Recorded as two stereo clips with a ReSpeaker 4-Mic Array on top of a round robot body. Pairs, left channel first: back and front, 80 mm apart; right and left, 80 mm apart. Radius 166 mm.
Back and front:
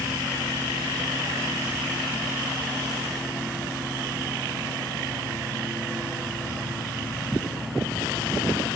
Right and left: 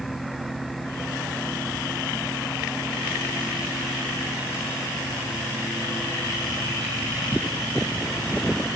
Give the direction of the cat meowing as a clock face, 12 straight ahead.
No cat meowing in this recording.